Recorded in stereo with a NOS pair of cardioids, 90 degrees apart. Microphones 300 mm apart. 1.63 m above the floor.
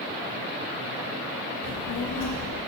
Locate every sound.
1.6 s a child speaking: 60° left, 1.5 m